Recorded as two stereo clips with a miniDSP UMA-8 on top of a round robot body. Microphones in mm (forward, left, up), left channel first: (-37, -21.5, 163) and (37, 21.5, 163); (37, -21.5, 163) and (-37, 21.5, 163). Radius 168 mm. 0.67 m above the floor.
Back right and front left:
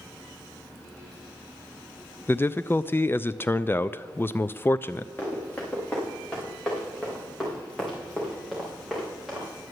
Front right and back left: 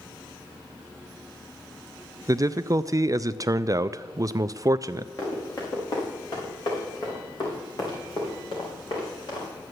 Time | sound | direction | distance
2.3 | a man speaking | 160° left | 0.5 m
5.2 | running footsteps | 75° right | 4.5 m